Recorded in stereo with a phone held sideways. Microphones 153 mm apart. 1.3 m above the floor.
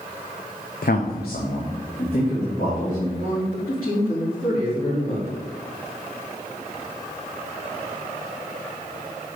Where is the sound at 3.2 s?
70° left (ahead or behind), 3 m.